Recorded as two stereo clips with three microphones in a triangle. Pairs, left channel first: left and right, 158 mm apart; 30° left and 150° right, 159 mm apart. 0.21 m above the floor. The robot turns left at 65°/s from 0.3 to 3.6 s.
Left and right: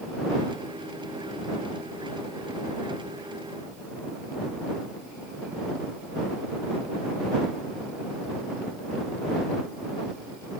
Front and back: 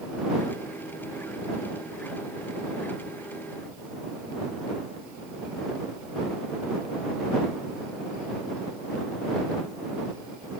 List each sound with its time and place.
Only background noise.